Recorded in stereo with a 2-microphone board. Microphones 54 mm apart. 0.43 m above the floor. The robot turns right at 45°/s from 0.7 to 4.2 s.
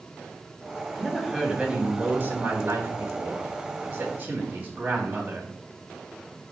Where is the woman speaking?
170° left, 3.5 m; by 5.5 s 45° right, 3.5 m.